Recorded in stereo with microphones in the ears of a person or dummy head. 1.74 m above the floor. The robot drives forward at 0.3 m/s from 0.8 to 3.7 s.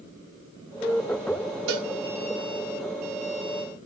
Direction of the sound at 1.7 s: 70° right (ahead or behind).